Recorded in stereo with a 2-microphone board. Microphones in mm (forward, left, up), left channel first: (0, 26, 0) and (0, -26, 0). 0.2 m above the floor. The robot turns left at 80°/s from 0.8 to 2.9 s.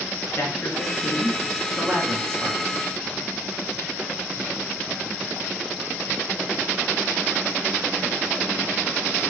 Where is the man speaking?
50° left (ahead or behind), 3 m; by 2.6 s 60° right (ahead or behind), 3 m.